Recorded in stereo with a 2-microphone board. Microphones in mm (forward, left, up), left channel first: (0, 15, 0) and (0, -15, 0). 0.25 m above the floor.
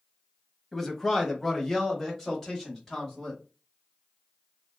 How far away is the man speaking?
About 1.1 m.